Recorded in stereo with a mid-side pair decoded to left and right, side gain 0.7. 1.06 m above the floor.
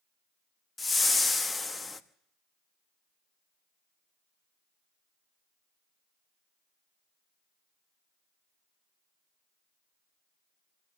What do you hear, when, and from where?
0.8 s a whoosh: 15° left, 1.0 m